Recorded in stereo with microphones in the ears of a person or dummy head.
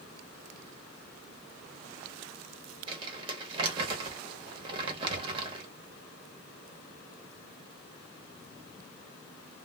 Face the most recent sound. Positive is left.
turn(degrees=-30)  # may be behind; listen again after turning